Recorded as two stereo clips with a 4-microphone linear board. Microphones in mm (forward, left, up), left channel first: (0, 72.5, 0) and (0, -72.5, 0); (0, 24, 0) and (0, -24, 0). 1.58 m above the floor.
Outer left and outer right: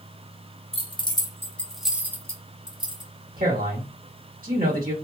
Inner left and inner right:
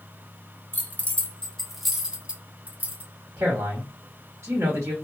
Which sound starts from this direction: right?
A man speaking, at 3.4 s.